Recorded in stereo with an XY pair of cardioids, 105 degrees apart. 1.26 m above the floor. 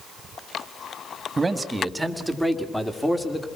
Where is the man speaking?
25° right, 2.5 m; by 3.5 s 15° left, 3.5 m.